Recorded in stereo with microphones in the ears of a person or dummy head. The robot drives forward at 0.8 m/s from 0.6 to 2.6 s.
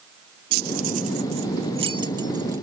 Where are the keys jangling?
50° right (ahead or behind); by 2.6 s 20° right (ahead or behind).